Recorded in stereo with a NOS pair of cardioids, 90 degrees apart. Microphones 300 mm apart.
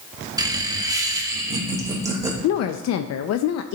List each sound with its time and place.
0.4 s laughter: 15° right, 1.3 m; by 2.3 s 10° right, 4 m
2.4 s a woman speaking: 60° left, 0.6 m